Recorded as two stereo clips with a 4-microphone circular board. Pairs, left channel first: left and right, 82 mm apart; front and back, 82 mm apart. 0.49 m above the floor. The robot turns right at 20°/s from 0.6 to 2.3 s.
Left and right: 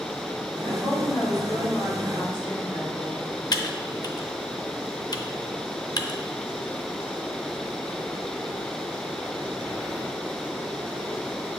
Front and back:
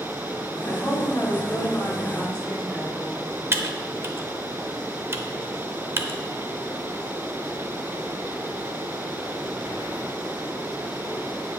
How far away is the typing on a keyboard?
About 0.5 m.